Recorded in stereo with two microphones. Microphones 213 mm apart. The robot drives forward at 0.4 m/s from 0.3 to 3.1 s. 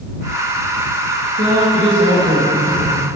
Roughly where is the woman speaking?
Right.